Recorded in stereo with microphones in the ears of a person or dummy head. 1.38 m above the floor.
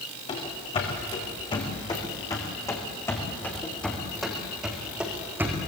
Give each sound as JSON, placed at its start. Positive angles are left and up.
{"t": 0.3, "sound": "running footsteps", "side_deg": 35, "distance_m": 6.0}